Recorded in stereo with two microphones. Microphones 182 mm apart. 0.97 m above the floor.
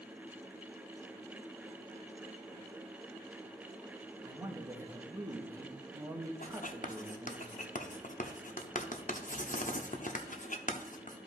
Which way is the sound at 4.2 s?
20° right (ahead or behind).